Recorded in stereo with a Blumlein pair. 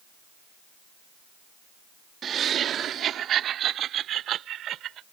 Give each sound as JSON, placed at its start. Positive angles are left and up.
{"t": 2.2, "sound": "laughter", "azimuth_deg": -25}